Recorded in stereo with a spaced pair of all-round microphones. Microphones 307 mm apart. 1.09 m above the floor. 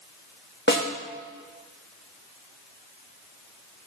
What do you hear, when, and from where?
0.7 s a snare drum: 35° left (ahead or behind), 2.0 m